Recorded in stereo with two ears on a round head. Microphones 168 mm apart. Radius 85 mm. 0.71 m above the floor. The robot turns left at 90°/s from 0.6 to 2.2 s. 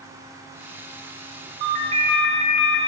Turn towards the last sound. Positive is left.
turn(degrees=-175)